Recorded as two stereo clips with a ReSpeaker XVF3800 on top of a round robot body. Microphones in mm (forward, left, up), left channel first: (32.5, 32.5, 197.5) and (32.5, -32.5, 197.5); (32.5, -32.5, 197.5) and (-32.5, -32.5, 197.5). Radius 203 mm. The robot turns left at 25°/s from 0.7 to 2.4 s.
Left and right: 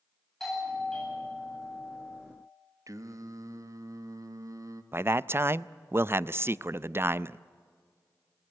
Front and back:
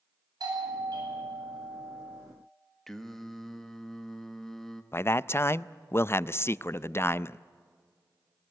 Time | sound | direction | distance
0.4 | a doorbell | 175° left | 9 m
2.9 | singing | 85° right | 1.7 m
4.9 | a man speaking | 45° right | 0.6 m